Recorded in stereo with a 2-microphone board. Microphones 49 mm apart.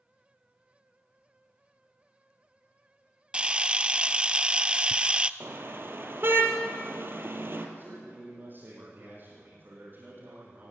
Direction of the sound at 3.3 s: 25° right (ahead or behind).